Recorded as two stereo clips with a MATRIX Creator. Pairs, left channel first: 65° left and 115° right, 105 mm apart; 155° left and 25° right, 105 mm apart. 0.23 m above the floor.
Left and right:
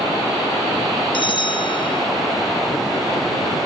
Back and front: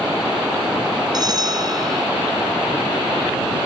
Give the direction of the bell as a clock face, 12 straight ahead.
11 o'clock.